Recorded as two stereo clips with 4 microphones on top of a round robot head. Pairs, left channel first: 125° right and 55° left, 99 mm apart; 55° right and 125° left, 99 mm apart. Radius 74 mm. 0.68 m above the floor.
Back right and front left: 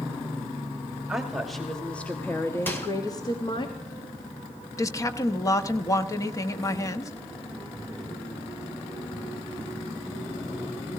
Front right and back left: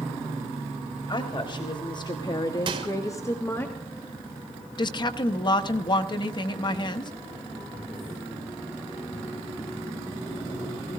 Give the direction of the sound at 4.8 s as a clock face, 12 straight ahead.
3 o'clock.